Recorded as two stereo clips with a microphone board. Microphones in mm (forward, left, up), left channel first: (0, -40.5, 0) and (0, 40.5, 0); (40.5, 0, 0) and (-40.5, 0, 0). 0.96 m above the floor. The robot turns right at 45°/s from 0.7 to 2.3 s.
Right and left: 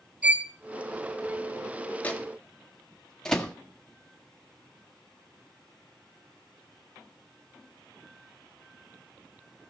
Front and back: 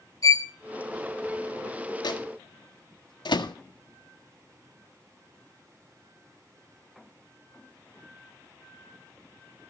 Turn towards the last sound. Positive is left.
turn(degrees=-10)